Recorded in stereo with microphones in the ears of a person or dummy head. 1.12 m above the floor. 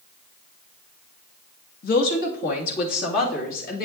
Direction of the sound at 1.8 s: 50° left (ahead or behind).